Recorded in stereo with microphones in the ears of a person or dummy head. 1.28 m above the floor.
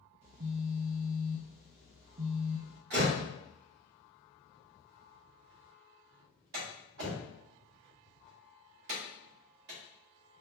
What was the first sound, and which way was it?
A phone buzzing, 40° right (ahead or behind).